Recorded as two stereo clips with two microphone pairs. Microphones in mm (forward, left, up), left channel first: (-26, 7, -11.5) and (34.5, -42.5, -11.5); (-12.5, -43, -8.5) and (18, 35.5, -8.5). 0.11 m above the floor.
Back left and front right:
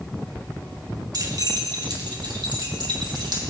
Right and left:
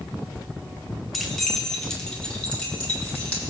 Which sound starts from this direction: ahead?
Keys jangling, at 1.1 s.